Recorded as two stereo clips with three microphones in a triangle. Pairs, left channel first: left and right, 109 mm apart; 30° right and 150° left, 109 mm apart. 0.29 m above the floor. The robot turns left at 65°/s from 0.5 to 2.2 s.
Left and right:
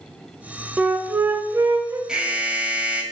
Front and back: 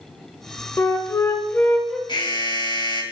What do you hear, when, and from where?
0.8 s a flute: 20° right, 0.6 m; by 2.0 s 100° right, 0.6 m
2.1 s an alarm: 5° right, 1.0 m; by 3.0 s 15° right, 1.0 m